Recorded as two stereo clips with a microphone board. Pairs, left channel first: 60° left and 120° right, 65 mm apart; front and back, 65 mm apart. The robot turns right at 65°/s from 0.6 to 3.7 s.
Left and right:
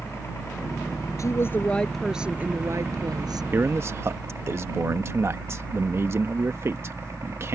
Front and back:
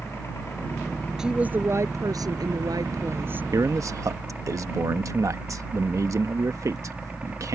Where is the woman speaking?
100° left; by 3.4 s 115° right.